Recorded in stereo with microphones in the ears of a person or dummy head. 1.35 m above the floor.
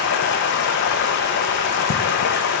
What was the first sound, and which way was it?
Running water, 55° left (ahead or behind).